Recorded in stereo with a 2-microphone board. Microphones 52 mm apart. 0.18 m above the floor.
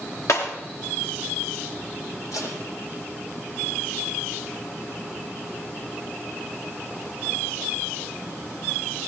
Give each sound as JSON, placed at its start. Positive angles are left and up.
{"t": 0.3, "sound": "breaking glass", "side_deg": 75, "distance_m": 7.5}
{"t": 2.3, "sound": "tape being pulled", "side_deg": 80, "distance_m": 7.0}